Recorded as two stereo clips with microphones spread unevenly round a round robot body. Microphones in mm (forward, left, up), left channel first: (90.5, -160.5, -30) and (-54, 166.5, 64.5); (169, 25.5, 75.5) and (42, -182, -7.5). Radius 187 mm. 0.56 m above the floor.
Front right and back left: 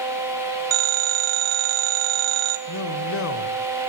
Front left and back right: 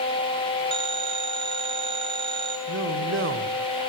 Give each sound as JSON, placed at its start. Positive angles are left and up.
{"t": 0.7, "sound": "a phone ringing", "azimuth_deg": 165, "distance_m": 1.3}
{"t": 2.7, "sound": "a man speaking", "azimuth_deg": -110, "distance_m": 2.5}